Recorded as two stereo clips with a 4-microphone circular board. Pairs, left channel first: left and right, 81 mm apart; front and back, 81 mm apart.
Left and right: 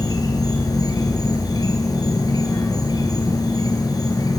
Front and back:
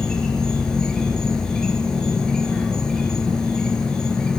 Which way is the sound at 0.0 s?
80° left.